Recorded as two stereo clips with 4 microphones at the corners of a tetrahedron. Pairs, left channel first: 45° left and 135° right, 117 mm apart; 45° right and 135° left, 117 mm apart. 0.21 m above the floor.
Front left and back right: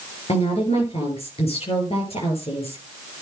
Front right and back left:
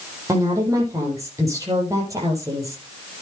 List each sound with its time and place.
0.3 s a woman speaking: 75° left, 6 m